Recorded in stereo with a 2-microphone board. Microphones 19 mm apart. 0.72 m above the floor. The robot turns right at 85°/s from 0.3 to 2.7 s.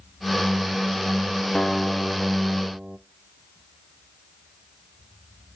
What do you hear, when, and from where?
1.6 s a guitar: 145° left, 0.7 m; by 3.0 s 120° right, 0.7 m